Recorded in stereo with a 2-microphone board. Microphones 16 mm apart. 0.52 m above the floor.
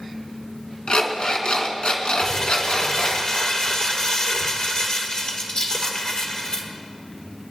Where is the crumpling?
50° left (ahead or behind), 2.0 m.